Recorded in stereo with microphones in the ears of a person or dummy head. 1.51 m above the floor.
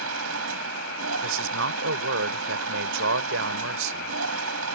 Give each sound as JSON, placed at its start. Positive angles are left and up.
{"t": 0.0, "sound": "a machine running", "side_deg": -75}
{"t": 1.2, "sound": "a man speaking", "side_deg": -65}